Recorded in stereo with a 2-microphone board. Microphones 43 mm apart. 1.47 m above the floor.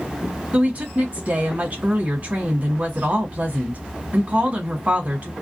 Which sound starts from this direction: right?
A woman speaking, at 0.5 s.